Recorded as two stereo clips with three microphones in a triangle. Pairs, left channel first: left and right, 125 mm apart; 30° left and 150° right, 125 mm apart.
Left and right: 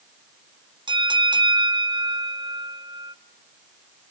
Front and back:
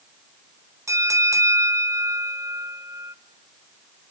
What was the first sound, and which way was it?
A bell, 100° right.